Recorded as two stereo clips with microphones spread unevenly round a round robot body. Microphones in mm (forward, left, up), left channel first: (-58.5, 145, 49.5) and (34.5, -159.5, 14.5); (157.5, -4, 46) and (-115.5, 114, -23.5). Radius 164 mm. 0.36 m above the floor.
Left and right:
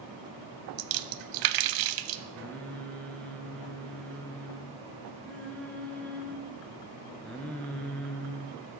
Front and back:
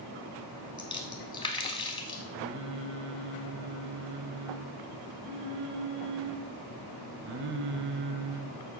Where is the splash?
100° right, 0.5 m.